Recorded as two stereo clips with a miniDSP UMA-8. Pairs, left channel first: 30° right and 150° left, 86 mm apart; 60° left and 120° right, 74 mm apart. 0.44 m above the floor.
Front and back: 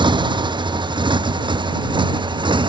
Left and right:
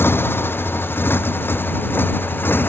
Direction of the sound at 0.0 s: 120° left.